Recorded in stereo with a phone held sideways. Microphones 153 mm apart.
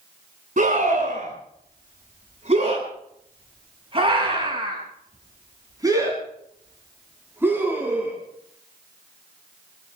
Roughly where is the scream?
Right.